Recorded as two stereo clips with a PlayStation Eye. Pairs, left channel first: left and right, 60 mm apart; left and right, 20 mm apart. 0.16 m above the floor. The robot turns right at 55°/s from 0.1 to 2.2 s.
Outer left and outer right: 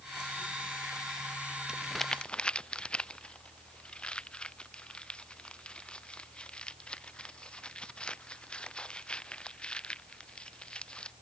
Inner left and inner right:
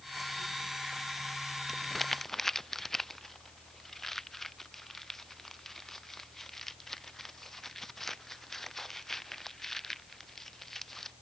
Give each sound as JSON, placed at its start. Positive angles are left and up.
{"t": 1.7, "sound": "crumpling", "side_deg": -10}